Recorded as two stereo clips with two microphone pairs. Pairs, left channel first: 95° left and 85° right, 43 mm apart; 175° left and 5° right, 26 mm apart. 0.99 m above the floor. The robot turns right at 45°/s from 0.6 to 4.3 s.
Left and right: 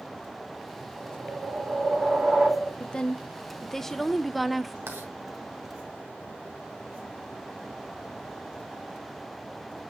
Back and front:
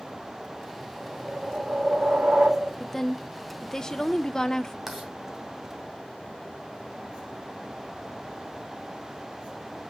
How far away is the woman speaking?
About 0.6 m.